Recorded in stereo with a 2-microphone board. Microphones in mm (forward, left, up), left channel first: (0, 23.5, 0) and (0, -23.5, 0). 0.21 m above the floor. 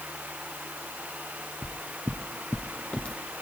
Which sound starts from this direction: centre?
Footsteps, at 1.6 s.